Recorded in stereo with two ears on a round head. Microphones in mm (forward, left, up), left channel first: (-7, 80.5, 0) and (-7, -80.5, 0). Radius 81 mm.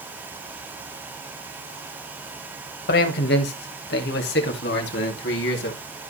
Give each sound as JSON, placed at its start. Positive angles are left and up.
{"t": 2.9, "sound": "a man speaking", "side_deg": 55, "distance_m": 2.0}